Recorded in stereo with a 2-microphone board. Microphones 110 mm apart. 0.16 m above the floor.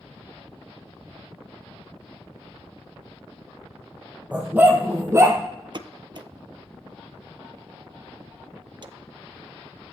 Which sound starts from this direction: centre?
A dog barking, at 4.3 s.